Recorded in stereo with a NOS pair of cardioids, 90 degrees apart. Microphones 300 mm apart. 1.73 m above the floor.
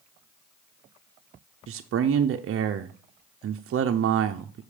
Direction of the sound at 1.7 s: 50° right.